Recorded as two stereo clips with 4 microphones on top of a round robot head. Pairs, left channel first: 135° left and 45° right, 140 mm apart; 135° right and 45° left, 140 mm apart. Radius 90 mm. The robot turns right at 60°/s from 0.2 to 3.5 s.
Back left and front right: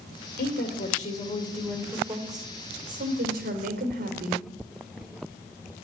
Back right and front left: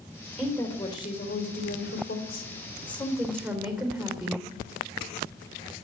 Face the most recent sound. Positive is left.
turn(degrees=-40)